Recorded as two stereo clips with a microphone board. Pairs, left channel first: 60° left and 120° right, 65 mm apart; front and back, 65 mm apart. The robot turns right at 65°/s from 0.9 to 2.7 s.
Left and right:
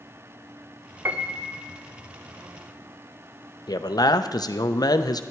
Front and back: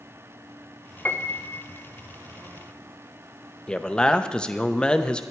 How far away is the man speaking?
About 0.7 m.